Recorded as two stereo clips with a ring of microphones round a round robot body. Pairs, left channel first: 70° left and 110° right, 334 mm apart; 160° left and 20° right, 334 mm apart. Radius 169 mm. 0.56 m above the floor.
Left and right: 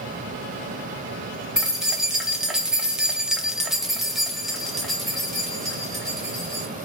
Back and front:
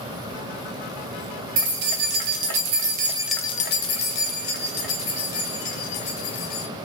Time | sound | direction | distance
1.6 | keys jangling | 25° right | 1.3 m